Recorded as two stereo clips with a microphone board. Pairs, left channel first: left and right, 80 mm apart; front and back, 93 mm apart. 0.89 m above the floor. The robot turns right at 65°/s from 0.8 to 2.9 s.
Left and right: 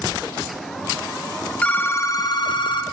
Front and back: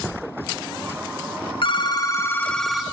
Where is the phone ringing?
20° left, 0.8 m; by 2.8 s 95° left, 0.8 m.